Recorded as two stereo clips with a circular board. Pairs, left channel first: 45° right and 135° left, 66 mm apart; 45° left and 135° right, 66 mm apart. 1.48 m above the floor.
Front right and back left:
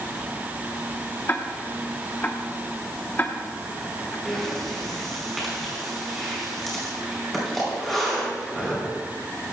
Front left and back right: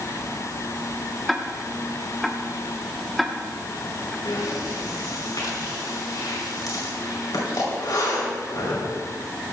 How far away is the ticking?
About 1.0 m.